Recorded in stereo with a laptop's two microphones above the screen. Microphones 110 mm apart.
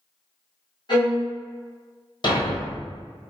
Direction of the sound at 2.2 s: 45° left (ahead or behind).